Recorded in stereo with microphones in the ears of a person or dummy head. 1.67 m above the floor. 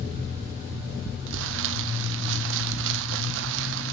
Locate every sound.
1.3 s crumpling: 70° right (ahead or behind), 1.5 m